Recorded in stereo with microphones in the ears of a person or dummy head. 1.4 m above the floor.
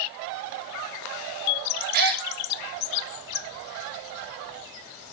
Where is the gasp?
55° right (ahead or behind), 1.7 m.